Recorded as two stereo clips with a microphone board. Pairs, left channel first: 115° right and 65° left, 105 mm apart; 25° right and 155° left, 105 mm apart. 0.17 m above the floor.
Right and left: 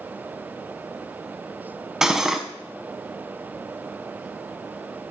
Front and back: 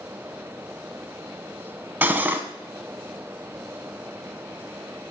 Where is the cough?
I don't hear a cough.